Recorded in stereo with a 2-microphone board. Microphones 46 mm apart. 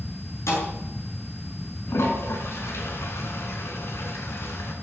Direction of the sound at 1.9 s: 65° left (ahead or behind).